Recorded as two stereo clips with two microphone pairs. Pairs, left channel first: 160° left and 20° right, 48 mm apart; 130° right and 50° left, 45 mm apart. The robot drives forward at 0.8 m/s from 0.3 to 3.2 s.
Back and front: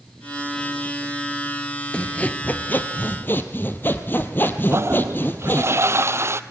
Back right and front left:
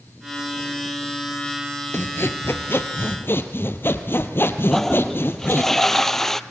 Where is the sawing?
140° right, 1.3 m; by 5.7 s 160° right, 2 m.